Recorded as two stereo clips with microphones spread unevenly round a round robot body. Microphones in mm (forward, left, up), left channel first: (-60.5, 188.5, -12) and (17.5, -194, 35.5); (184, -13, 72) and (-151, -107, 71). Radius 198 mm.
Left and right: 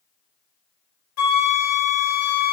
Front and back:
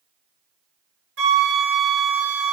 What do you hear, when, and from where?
1.2 s a flute: 140° left, 2.5 m